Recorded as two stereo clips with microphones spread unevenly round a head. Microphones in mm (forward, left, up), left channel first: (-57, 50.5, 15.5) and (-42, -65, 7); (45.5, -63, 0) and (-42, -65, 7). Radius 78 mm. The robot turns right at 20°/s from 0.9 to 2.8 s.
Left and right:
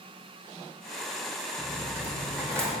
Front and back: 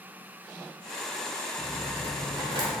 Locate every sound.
1.6 s a dropped coin: 170° right, 2.0 m; by 2.7 s 150° right, 2.0 m